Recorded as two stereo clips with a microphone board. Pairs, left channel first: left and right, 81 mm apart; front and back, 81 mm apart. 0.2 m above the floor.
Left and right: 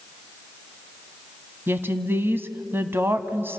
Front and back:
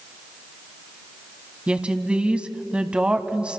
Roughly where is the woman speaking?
Behind right.